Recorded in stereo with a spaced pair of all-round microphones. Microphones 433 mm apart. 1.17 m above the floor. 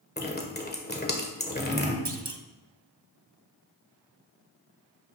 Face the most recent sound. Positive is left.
turn(degrees=-70)  # may be behind; listen again after turning